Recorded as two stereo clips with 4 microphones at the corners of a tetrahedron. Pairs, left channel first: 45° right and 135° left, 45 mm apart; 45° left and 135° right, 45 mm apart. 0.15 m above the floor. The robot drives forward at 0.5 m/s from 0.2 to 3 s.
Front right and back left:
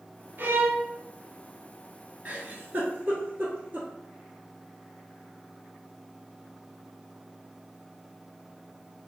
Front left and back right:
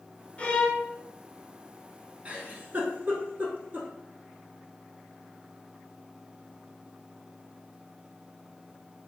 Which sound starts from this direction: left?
A violin, at 0.4 s.